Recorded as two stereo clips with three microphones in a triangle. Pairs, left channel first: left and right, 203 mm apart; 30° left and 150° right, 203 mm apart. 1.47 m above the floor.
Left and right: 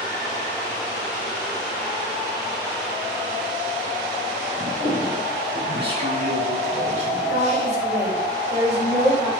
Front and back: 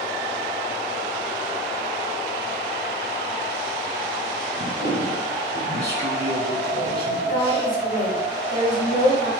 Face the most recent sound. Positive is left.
turn(degrees=-15)